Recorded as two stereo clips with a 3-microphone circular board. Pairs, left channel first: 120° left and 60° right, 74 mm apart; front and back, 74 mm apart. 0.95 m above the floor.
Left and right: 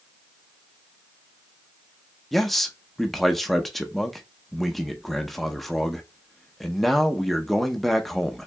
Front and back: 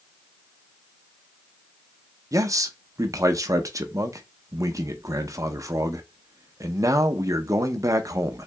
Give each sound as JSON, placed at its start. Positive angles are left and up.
{"t": 2.3, "sound": "a man speaking", "azimuth_deg": -155, "distance_m": 0.7}